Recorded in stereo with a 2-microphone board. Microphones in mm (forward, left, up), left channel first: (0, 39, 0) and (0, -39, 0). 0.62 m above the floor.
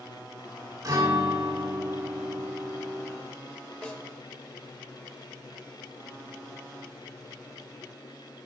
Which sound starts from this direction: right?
A guitar, at 0.8 s.